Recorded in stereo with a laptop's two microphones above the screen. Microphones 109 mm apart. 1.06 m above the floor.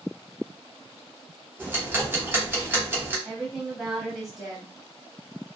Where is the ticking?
20° right (ahead or behind), 0.8 m.